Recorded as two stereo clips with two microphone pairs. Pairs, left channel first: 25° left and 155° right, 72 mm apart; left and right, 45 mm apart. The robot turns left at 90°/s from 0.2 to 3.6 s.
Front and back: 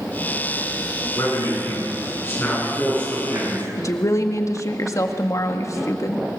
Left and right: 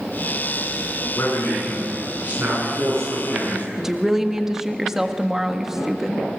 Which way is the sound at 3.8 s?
10° right.